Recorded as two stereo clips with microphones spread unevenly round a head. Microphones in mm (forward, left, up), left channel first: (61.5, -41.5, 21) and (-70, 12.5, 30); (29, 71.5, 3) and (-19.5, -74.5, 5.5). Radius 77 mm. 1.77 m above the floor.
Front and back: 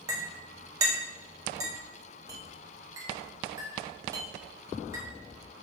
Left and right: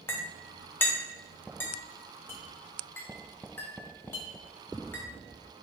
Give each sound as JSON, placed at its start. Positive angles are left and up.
{"t": 0.1, "sound": "a clink", "azimuth_deg": 130, "distance_m": 0.7}